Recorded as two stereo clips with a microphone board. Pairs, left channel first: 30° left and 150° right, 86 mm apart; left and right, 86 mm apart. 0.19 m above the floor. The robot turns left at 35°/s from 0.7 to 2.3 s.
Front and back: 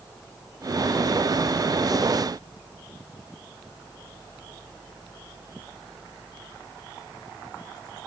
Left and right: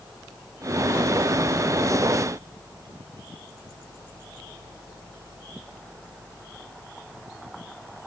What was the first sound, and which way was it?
Only background noise.